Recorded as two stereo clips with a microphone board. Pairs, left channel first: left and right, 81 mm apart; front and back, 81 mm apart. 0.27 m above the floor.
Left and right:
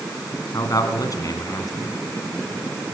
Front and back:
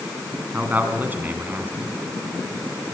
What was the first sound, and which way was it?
A man speaking, 115° left.